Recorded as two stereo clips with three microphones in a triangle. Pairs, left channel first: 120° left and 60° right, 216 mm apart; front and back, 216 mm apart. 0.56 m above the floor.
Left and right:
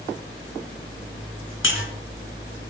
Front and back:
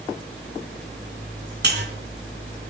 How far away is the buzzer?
About 3.5 m.